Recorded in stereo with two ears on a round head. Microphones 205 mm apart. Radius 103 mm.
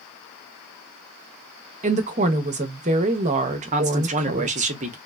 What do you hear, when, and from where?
1.8 s a woman speaking: 35° right (ahead or behind), 0.5 m
3.7 s a man speaking: 35° right (ahead or behind), 0.6 m